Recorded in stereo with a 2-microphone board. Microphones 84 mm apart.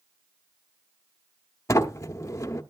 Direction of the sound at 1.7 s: 35° left (ahead or behind).